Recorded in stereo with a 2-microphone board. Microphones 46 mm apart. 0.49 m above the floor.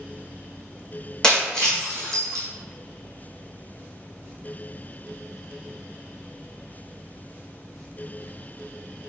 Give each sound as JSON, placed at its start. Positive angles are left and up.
{"t": 1.2, "sound": "breaking glass", "side_deg": 15, "distance_m": 1.4}